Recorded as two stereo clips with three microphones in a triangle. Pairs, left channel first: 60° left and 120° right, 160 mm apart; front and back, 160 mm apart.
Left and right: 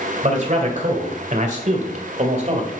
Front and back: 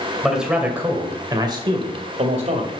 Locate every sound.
0.2 s a man speaking: 90° right, 2.5 m; by 2.7 s 155° right, 2.5 m